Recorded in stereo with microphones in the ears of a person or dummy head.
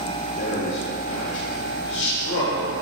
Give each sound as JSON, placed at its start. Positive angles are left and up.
{"t": 0.4, "sound": "a man speaking", "side_deg": 75, "distance_m": 1.8}